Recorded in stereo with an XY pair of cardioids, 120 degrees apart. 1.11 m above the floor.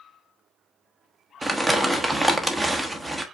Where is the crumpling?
10° right, 0.9 m.